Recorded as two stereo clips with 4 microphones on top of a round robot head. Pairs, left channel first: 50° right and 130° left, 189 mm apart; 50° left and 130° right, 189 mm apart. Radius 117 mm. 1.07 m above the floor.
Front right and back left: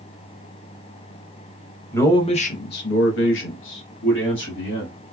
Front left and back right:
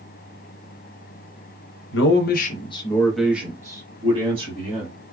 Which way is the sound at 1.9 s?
30° left.